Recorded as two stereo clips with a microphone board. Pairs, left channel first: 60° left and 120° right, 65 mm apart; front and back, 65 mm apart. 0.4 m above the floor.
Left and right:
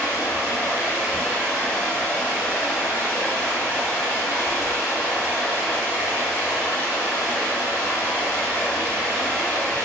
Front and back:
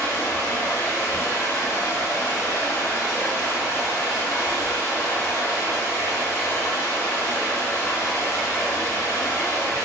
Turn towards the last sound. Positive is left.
turn(degrees=0)